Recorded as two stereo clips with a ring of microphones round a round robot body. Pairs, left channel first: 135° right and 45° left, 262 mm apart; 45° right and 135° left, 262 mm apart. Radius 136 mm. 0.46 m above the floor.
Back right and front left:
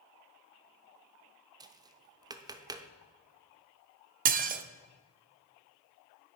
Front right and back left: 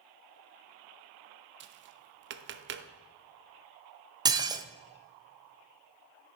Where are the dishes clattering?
70° left, 0.6 m.